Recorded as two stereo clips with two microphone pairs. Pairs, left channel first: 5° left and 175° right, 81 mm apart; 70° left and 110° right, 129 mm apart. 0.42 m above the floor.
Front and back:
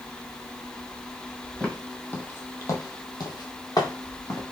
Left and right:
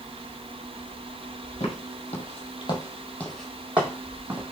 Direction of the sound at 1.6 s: 85° left.